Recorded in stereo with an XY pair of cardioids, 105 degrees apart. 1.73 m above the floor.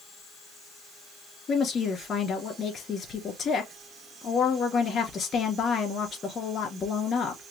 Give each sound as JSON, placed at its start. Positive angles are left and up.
{"t": 1.5, "sound": "a woman speaking", "azimuth_deg": 50, "distance_m": 3.0}